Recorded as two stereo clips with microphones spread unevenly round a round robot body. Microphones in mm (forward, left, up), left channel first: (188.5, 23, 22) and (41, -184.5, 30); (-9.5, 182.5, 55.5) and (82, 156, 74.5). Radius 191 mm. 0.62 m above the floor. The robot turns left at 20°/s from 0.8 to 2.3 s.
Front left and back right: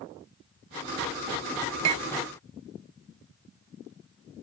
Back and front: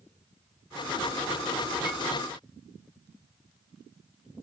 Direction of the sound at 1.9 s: 105° right.